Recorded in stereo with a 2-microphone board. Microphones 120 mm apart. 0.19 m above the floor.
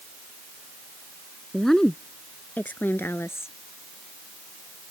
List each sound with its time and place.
1.5 s a woman speaking: centre (ahead or behind); by 3.5 s 20° left (ahead or behind)